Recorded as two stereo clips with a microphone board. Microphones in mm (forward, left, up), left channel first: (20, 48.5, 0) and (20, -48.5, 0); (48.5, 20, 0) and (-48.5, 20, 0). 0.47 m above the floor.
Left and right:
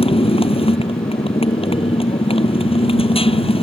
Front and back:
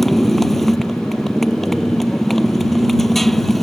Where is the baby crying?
I don't hear a baby crying.